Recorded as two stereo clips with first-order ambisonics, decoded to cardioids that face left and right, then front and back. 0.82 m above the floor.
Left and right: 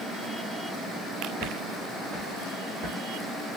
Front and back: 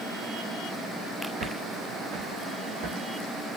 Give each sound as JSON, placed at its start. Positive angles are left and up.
{"t": 1.4, "sound": "footsteps", "azimuth_deg": 180, "distance_m": 1.7}